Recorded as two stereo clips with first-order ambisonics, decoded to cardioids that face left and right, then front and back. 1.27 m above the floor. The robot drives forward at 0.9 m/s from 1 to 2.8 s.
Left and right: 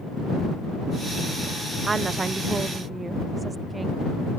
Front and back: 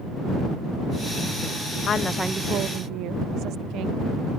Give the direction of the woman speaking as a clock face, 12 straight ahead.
1 o'clock.